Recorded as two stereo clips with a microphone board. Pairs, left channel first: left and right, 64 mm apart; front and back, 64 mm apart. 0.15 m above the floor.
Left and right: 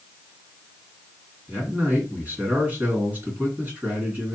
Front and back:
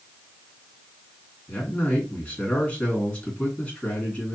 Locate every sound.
1.5 s a man speaking: 60° right, 1.9 m